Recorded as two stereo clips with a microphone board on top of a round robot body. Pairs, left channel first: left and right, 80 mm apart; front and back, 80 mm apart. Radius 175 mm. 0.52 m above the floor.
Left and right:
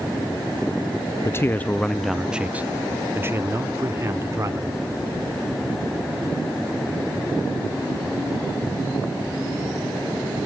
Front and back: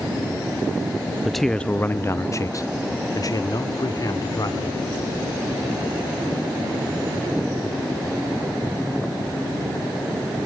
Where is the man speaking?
95° left, 0.7 m; by 4.8 s 40° right, 1.9 m.